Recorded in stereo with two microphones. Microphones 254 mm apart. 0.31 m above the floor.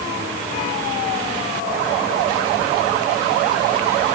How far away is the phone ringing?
No phone ringing in this recording.